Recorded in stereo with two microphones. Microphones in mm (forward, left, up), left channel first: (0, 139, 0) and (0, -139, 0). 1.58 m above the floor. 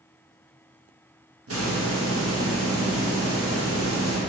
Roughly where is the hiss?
Right.